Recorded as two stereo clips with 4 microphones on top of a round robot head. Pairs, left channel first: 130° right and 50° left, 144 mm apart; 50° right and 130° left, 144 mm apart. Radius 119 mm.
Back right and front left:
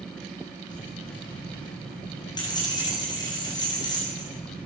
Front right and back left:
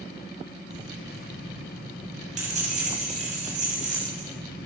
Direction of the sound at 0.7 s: 170° left.